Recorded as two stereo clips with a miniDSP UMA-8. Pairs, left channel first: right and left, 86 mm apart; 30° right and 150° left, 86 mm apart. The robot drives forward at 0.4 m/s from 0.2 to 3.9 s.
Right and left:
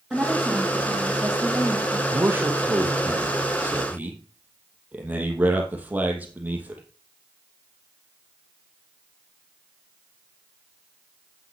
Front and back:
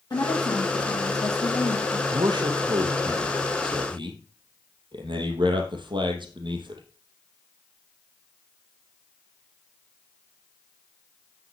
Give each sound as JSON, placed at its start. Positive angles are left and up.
{"t": 0.1, "sound": "a woman speaking", "azimuth_deg": 5, "distance_m": 3.0}
{"t": 2.1, "sound": "a man speaking", "azimuth_deg": 150, "distance_m": 2.0}